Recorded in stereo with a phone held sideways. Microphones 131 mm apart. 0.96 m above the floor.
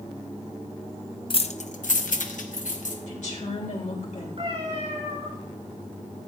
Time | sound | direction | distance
1.3 | keys jangling | 40° left (ahead or behind) | 0.6 m
3.1 | a woman speaking | 70° left (ahead or behind) | 3.5 m
4.4 | a cat meowing | 55° right (ahead or behind) | 4.5 m